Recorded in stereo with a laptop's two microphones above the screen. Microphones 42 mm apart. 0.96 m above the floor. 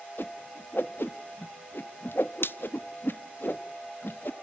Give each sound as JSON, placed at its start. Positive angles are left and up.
{"t": 0.2, "sound": "a whoosh", "side_deg": 60, "distance_m": 0.6}